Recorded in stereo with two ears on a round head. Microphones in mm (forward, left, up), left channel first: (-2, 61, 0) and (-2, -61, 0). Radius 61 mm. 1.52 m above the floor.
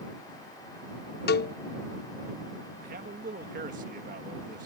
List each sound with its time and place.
1.3 s a cowbell: 85° left
2.8 s a man speaking: 65° right (ahead or behind)